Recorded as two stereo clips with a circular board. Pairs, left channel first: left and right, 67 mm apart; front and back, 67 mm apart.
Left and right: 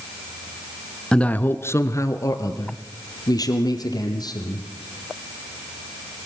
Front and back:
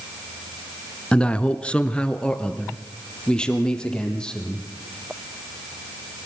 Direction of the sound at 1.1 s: 45° left.